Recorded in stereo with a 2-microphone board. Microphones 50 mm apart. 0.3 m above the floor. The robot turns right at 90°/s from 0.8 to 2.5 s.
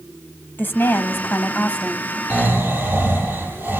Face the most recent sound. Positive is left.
turn(degrees=-50)  # may be behind; listen again after turning